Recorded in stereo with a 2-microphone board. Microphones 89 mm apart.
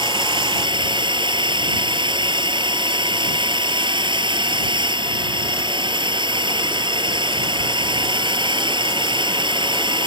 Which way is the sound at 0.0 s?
60° right (ahead or behind).